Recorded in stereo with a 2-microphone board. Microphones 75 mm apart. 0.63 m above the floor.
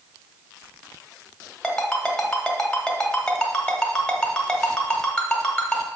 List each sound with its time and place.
1.6 s a ringtone: 10° left (ahead or behind), 1.5 m